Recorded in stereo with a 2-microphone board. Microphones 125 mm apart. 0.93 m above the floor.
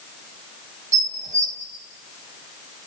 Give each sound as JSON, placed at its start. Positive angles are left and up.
{"t": 0.9, "sound": "dishes clattering", "side_deg": -90, "distance_m": 3.5}